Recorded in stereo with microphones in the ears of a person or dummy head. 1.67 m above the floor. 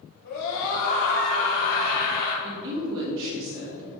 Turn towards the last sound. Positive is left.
turn(degrees=-70)  # may be behind; listen again after turning